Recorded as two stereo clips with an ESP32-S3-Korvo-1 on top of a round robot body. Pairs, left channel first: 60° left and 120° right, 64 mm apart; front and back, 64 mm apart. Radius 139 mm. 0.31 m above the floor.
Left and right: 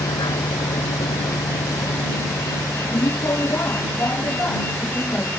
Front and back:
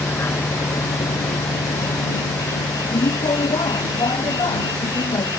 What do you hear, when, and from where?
0.0 s a vehicle: 60° left; by 5.4 s 5° right